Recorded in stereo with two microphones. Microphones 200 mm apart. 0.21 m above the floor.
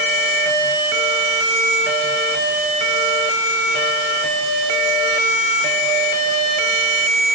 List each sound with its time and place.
Only background noise.